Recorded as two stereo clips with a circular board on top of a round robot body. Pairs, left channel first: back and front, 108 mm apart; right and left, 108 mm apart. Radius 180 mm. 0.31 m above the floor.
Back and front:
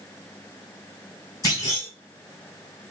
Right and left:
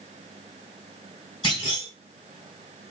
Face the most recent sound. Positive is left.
turn(degrees=-125)